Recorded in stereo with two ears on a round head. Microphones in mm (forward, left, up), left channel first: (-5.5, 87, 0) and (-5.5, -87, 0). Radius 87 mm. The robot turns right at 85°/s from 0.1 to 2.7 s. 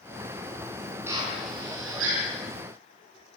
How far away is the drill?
About 8 m.